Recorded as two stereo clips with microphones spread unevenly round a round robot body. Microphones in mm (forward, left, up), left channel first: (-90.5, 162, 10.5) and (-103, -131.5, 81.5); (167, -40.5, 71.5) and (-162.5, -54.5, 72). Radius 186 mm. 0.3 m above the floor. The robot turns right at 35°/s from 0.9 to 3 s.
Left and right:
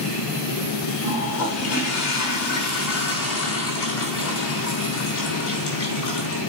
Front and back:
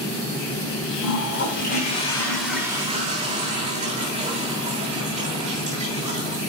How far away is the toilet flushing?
About 3.5 m.